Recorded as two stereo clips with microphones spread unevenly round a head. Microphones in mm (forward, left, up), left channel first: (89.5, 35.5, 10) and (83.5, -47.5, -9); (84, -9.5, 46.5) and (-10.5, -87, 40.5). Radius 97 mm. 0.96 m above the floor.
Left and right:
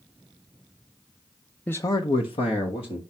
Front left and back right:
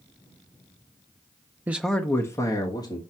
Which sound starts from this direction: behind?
A man speaking, at 1.7 s.